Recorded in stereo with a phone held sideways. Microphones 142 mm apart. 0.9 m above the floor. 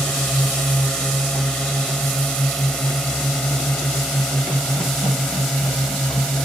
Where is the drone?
5° left (ahead or behind).